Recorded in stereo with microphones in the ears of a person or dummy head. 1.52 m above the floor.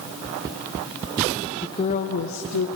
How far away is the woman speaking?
About 1.0 m.